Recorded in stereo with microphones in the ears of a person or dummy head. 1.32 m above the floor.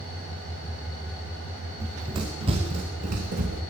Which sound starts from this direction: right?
Running footsteps, at 1.8 s.